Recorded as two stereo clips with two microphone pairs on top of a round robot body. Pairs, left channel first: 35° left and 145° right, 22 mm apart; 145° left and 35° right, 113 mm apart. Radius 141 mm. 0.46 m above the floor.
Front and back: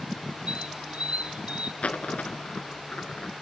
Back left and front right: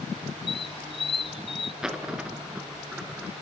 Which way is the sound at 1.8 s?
45° left.